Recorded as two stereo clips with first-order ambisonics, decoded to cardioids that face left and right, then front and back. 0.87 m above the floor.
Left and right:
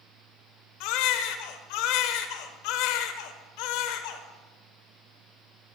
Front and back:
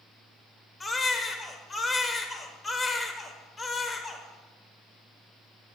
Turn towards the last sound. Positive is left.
turn(degrees=75)